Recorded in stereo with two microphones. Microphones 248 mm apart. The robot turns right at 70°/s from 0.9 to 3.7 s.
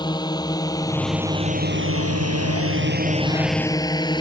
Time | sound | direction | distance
0.0 | a drone | 15° left (ahead or behind) | ?